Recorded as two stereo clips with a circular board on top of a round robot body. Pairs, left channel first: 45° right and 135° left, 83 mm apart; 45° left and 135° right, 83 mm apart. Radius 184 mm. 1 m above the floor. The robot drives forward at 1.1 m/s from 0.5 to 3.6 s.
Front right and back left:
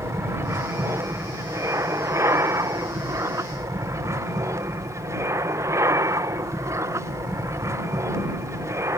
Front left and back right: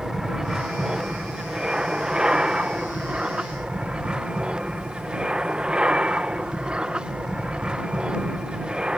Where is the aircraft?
150° left; by 9.0 s 155° left.